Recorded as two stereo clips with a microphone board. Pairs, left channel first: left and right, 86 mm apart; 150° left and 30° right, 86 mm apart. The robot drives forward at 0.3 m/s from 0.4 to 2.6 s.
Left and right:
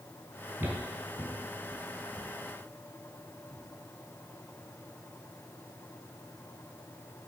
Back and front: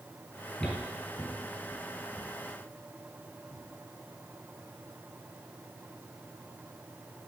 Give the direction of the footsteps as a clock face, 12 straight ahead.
5 o'clock.